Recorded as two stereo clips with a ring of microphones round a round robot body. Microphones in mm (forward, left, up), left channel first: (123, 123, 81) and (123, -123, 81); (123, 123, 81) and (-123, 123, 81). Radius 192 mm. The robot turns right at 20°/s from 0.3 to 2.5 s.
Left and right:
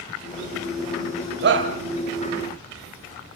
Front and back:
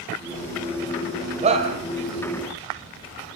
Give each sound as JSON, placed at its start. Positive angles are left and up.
{"t": 1.4, "sound": "a shout", "azimuth_deg": -120, "distance_m": 1.9}